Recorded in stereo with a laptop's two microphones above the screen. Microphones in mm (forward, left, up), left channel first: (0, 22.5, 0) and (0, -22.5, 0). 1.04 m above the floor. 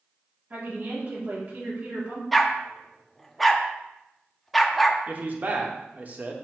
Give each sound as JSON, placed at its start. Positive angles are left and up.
{"t": 0.5, "sound": "a woman speaking", "side_deg": -45, "distance_m": 3.0}
{"t": 2.3, "sound": "a dog barking", "side_deg": 0, "distance_m": 0.5}
{"t": 5.1, "sound": "a man speaking", "side_deg": -35, "distance_m": 1.4}